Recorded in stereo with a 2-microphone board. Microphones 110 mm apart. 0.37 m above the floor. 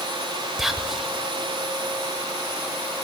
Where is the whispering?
Centre (ahead or behind), 1.1 m.